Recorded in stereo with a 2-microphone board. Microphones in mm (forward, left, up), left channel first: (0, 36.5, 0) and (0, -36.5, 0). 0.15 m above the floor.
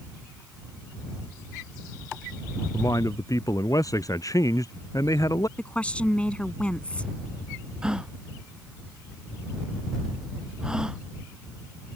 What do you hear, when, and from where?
2.7 s a man speaking: 50° left (ahead or behind)
5.6 s a woman speaking: 15° left (ahead or behind)
7.8 s a gasp: 10° right (ahead or behind)